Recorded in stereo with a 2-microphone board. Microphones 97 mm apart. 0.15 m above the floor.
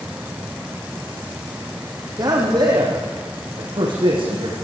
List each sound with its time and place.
2.2 s a man speaking: 45° right (ahead or behind), 6 m; by 4.5 s 60° right (ahead or behind), 9 m